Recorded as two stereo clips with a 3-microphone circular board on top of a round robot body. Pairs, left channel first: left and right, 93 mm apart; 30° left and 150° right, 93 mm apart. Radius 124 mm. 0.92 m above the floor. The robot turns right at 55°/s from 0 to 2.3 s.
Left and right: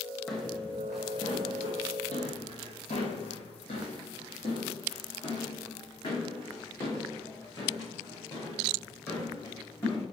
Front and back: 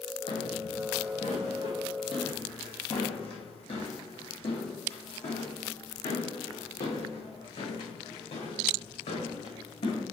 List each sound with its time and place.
0.3 s footsteps: 5° right, 2.5 m; by 10.0 s 25° left, 5.5 m